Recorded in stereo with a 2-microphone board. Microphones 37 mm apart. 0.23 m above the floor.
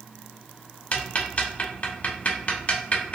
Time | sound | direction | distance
0.9 | ticking | 35° left (ahead or behind) | 0.6 m